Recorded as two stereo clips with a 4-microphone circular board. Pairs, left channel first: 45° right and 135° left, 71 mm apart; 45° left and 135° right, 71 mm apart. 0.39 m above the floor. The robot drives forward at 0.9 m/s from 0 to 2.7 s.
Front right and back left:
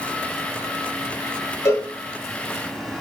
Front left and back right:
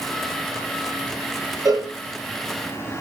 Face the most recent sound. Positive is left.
turn(degrees=-105)